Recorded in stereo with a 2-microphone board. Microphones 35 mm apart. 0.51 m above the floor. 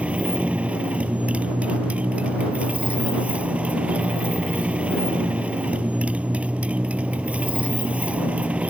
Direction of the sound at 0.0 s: 45° right (ahead or behind).